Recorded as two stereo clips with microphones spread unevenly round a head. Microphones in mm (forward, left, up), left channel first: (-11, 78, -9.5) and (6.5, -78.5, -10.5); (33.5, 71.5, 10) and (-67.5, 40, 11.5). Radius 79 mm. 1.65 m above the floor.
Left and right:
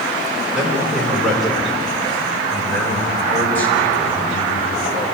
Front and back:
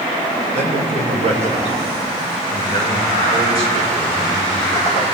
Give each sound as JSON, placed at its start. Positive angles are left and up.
{"t": 0.5, "sound": "a man speaking", "azimuth_deg": -170, "distance_m": 7.0}